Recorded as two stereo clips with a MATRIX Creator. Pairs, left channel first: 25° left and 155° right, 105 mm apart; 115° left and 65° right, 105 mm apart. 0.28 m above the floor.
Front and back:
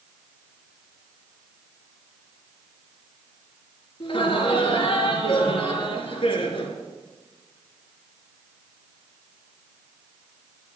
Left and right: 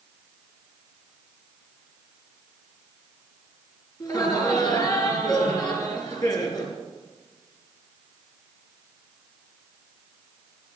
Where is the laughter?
60° left, 4 m.